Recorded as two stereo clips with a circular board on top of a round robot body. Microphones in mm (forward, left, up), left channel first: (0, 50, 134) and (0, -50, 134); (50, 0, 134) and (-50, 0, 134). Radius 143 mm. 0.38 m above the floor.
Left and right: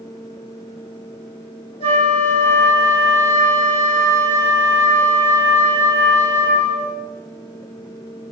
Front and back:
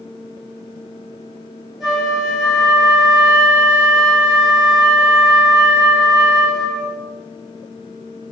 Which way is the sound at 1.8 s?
90° left.